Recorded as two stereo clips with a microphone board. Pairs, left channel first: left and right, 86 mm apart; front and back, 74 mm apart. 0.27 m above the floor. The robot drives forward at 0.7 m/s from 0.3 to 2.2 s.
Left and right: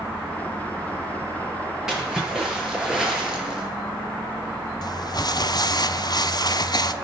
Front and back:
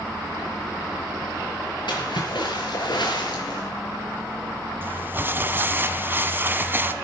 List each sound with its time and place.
1.9 s a splash: 10° right, 5.5 m
4.8 s crumpling: 120° left, 0.8 m